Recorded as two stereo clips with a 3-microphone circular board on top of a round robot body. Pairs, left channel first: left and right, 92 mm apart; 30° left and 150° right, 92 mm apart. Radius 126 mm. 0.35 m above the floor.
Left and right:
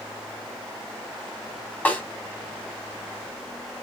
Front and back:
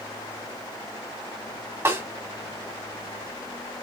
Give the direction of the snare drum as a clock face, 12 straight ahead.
7 o'clock.